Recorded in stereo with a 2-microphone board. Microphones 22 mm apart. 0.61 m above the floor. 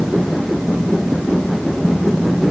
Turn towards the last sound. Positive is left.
No sound to turn to.